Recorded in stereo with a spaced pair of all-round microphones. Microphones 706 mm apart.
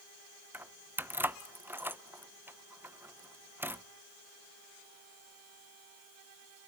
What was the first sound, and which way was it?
Keys jangling, 5° right (ahead or behind).